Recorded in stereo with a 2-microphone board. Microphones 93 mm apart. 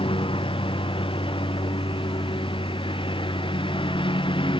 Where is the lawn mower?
70° left (ahead or behind); by 4.6 s 65° left (ahead or behind).